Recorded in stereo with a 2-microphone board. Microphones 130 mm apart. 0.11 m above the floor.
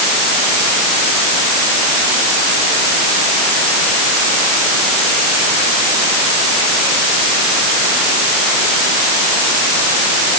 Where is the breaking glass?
I don't hear breaking glass.